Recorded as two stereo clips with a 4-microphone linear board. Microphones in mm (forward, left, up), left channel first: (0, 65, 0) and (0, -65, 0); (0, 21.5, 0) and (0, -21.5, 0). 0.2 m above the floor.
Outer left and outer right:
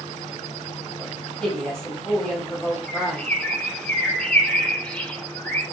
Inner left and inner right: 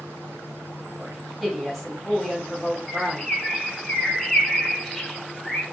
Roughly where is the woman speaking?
Centre.